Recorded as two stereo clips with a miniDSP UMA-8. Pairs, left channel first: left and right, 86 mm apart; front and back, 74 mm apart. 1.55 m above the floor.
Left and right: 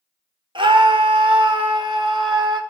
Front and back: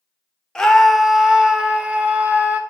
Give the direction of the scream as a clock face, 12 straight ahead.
3 o'clock.